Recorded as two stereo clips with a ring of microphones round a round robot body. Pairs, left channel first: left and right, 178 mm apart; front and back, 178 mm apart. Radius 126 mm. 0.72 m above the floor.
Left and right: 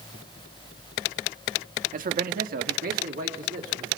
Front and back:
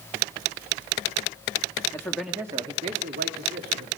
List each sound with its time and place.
1.9 s a man speaking: 70° right, 1.5 m; by 3.9 s 150° right, 2.5 m